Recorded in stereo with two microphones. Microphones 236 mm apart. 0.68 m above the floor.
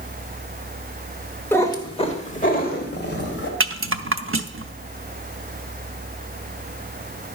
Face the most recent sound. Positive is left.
turn(degrees=-60)  # may be behind; listen again after turning